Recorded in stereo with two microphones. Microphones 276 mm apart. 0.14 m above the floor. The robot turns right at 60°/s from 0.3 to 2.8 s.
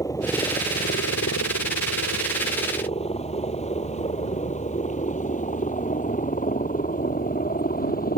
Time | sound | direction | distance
0.0 | a helicopter | 10° left (ahead or behind) | ?